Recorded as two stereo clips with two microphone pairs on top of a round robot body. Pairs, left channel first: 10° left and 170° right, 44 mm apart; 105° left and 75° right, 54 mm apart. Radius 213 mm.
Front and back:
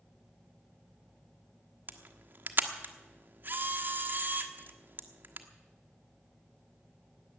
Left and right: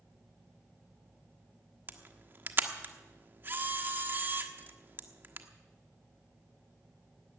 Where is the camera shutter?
130° right, 1.3 m.